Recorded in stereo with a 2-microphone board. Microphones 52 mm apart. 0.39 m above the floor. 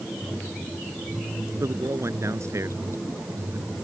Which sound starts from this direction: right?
A man speaking, at 1.6 s.